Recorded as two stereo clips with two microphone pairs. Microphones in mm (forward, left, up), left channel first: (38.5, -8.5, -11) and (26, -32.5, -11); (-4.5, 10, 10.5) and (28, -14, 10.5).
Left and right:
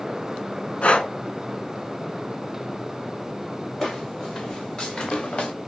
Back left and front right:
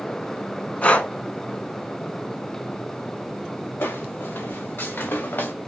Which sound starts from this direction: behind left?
Footsteps, at 3.8 s.